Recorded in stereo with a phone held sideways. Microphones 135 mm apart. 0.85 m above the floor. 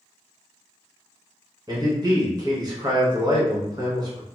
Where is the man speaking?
30° right (ahead or behind), 1.2 m.